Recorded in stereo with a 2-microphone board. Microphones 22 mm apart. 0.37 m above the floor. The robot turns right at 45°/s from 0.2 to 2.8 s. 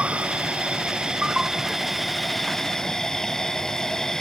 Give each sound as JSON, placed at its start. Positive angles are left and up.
{"t": 0.0, "sound": "an insect", "azimuth_deg": -90}